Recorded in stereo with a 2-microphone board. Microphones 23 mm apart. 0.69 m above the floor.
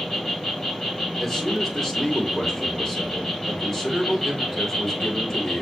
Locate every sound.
0.0 s an insect: 20° left (ahead or behind), 2 m
1.2 s a man speaking: 15° left (ahead or behind), 1.7 m